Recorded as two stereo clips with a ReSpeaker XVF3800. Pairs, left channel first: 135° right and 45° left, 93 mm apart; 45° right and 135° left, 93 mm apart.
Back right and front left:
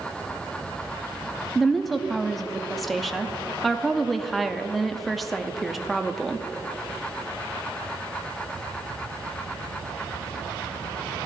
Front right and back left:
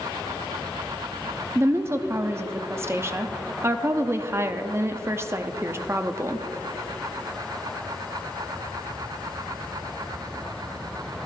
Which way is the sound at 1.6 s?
135° left.